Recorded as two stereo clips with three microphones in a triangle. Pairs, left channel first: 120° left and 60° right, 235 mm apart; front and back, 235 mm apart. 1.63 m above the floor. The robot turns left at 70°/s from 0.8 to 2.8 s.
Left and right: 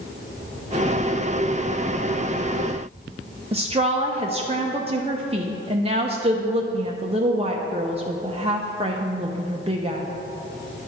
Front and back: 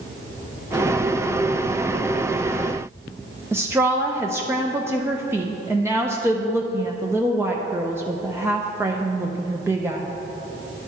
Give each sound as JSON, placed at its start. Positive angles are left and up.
{"t": 3.5, "sound": "a woman speaking", "azimuth_deg": -105, "distance_m": 0.5}